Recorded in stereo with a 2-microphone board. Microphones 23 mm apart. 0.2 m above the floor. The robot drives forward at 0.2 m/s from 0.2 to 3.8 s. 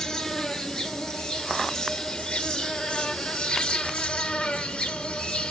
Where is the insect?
30° left (ahead or behind), 1.2 m; by 5.5 s 55° left (ahead or behind), 0.7 m.